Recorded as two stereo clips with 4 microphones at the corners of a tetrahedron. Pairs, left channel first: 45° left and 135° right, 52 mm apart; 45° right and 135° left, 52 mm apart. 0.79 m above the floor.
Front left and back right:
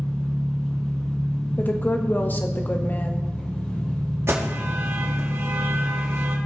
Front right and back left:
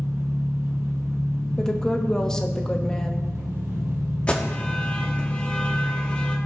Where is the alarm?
110° right, 1.4 m.